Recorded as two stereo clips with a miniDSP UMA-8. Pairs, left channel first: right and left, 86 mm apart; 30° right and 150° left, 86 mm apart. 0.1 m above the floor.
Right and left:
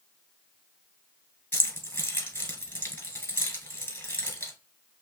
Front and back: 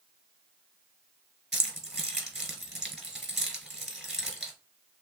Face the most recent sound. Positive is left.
turn(degrees=-125)